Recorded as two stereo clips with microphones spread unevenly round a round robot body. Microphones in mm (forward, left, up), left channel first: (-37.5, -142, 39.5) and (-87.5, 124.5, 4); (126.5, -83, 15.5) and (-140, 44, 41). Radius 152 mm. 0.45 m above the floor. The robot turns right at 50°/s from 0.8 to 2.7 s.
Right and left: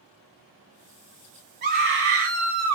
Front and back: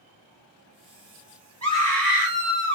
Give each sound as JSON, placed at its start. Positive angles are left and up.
{"t": 1.6, "sound": "a scream", "azimuth_deg": 55, "distance_m": 1.5}